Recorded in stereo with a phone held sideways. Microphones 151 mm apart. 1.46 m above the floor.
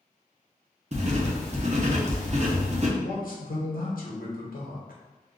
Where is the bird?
I don't hear a bird.